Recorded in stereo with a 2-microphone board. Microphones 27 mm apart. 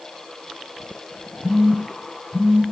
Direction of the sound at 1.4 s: 75° right (ahead or behind).